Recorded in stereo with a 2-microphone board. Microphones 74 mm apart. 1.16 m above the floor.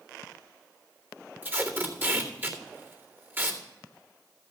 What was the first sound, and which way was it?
Tape being pulled, 25° right (ahead or behind).